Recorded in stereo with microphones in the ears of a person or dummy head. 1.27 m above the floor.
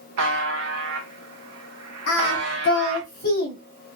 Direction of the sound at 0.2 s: 80° right.